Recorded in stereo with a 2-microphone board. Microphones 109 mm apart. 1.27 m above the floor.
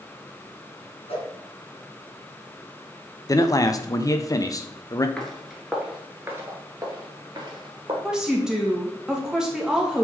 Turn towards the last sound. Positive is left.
turn(degrees=-5)  # may be behind; listen again after turning